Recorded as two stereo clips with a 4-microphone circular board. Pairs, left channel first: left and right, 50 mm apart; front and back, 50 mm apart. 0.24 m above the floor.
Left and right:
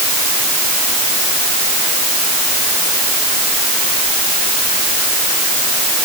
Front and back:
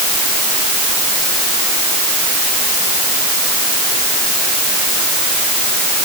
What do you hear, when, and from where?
Only background noise.